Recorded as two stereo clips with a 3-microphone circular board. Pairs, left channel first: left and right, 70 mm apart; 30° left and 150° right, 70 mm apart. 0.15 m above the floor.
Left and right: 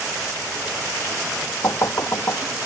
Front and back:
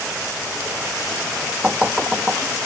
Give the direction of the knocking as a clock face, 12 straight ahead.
8 o'clock.